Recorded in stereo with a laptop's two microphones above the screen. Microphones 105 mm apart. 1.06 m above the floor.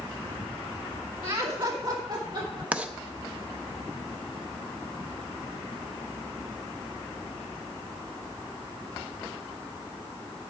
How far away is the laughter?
About 1.4 m.